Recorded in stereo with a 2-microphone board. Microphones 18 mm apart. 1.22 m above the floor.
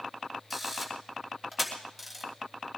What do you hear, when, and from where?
0.5 s a camera shutter: centre (ahead or behind), 3 m